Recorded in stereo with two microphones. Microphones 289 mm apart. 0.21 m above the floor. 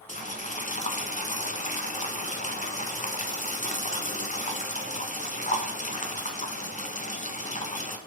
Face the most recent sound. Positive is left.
turn(degrees=25)  # may be behind; listen again after turning